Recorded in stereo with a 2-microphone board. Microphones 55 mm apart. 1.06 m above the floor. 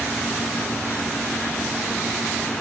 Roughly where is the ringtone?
I don't hear a ringtone.